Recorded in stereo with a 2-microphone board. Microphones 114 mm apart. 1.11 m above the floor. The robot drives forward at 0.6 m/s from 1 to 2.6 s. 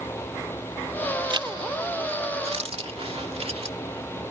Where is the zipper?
45° right (ahead or behind); by 3.8 s 60° right (ahead or behind).